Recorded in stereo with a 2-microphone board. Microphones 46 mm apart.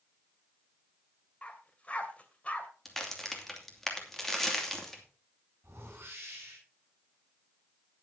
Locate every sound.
1.4 s a dog barking: 30° left (ahead or behind), 2 m
2.9 s a crack: 10° left (ahead or behind), 2.5 m
5.6 s a whoosh: 50° right (ahead or behind), 10 m